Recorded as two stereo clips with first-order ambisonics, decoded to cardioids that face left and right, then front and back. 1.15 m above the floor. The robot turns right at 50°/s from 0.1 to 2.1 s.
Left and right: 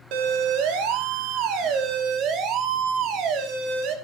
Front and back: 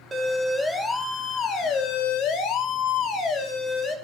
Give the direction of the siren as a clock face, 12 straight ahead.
4 o'clock.